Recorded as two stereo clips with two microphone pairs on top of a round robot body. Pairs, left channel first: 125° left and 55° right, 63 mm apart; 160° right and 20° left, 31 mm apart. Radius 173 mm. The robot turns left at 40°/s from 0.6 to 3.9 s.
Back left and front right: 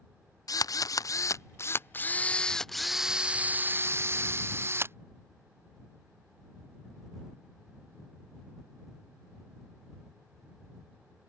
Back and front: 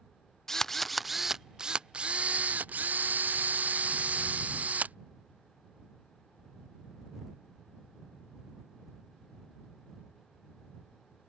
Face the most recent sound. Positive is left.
turn(degrees=-5)